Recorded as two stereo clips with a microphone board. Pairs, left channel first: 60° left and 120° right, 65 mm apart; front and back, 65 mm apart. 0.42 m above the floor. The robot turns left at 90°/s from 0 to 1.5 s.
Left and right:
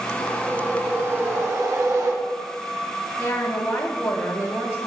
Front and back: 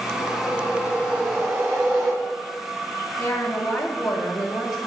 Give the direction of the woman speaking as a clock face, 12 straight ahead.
12 o'clock.